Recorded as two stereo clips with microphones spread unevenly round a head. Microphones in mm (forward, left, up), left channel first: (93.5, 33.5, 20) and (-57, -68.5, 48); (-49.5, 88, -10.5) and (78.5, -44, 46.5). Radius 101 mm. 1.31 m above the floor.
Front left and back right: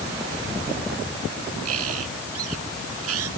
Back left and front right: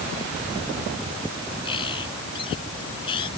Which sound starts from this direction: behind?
A bird, at 1.6 s.